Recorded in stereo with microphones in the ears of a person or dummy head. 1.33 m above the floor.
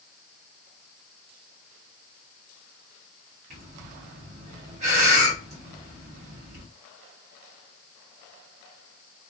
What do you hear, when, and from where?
3.5 s breathing: 35° right (ahead or behind), 1.1 m